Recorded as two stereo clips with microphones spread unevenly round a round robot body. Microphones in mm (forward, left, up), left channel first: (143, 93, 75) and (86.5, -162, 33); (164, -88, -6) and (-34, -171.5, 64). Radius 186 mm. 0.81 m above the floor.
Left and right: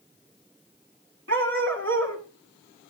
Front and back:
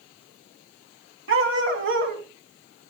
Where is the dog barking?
165° right, 1.4 m.